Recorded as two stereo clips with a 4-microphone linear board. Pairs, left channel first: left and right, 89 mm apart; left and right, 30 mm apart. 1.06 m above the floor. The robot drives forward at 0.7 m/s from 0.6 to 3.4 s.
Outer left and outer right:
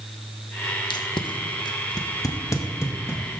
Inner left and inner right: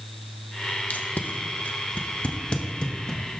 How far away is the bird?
No bird in this recording.